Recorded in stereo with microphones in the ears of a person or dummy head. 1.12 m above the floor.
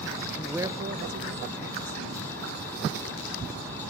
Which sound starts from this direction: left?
A man speaking, at 0.3 s.